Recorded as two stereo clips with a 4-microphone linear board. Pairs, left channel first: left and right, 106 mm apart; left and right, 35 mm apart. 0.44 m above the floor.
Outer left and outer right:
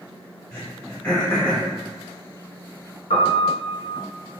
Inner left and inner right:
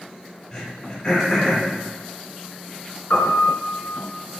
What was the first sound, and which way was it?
Throat clearing, 25° left (ahead or behind).